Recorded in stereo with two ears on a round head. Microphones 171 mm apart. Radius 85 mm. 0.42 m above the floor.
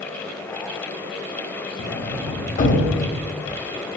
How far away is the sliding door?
About 0.8 m.